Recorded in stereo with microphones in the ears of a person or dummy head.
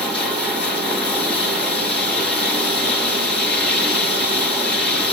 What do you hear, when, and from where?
0.0 s running water: 5° left (ahead or behind), 2.5 m